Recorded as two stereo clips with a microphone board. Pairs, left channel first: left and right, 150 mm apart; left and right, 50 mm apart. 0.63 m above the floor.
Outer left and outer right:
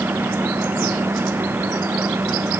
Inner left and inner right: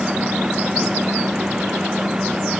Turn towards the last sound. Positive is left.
No sound to turn to.